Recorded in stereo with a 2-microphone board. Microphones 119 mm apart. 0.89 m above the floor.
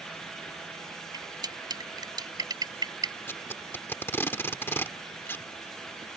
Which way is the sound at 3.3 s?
20° left (ahead or behind).